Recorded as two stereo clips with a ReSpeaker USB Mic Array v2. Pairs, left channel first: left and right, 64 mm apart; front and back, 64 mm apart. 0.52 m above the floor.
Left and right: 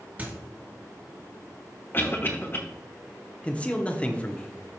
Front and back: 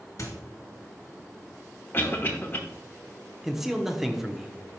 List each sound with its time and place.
0.2 s a squeak: 30° right, 2 m
1.9 s a cough: 50° left, 1.0 m
3.4 s a man speaking: 105° left, 0.7 m